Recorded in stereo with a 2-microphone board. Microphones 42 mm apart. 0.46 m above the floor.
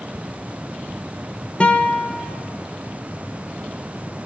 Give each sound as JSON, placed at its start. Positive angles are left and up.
{"t": 1.6, "sound": "a guitar", "side_deg": 30, "distance_m": 1.2}